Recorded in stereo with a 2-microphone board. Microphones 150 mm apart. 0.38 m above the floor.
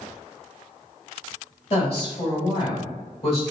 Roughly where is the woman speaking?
Left.